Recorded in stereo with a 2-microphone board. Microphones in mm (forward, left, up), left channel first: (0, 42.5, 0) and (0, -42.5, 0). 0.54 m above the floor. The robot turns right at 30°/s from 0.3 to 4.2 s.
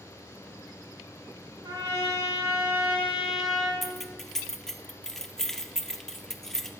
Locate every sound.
1.6 s a trumpet: 60° right, 3 m; by 3.7 s 5° left, 3 m
3.8 s keys jangling: centre (ahead or behind), 0.6 m; by 6.7 s 5° left (ahead or behind), 0.6 m